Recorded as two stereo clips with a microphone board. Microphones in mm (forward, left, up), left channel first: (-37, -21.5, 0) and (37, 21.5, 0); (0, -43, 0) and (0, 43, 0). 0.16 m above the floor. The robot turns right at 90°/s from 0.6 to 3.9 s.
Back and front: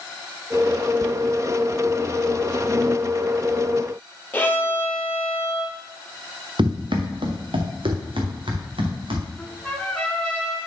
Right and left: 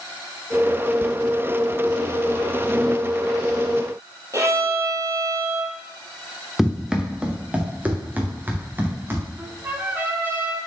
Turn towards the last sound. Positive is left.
turn(degrees=135)